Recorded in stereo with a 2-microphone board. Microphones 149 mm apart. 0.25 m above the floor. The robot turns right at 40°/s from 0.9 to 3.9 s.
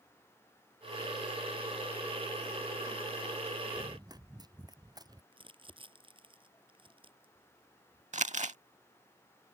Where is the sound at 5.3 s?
35° right (ahead or behind).